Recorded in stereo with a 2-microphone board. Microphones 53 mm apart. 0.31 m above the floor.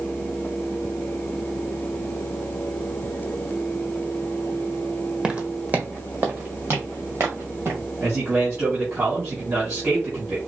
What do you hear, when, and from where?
5.2 s footsteps: 15° right (ahead or behind), 0.8 m; by 7.8 s 55° right (ahead or behind), 2.5 m
8.0 s a man speaking: 50° right (ahead or behind), 2.5 m